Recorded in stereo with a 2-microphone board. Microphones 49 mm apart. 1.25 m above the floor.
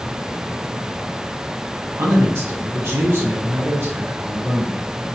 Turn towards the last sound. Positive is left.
turn(degrees=-60)  # may be behind; listen again after turning